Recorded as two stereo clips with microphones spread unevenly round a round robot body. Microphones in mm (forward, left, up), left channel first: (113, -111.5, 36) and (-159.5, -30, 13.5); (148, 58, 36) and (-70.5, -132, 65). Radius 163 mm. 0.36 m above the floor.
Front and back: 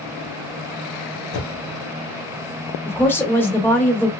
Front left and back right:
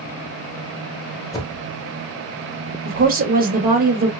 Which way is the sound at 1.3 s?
35° right.